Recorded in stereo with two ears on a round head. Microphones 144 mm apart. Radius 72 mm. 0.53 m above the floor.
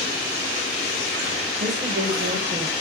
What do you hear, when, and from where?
1.6 s a woman speaking: 55° right (ahead or behind), 3 m; by 2.7 s 45° right (ahead or behind), 2 m